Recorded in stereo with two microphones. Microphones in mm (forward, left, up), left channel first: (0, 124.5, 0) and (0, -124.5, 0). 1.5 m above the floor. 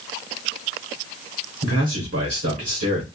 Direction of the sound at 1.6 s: 70° right (ahead or behind).